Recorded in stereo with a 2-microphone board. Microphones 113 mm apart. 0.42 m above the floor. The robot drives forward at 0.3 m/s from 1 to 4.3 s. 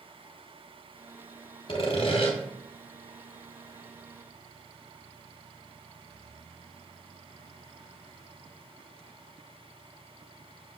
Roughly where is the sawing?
Left.